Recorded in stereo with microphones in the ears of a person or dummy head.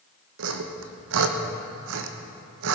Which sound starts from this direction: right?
Sawing, at 0.4 s.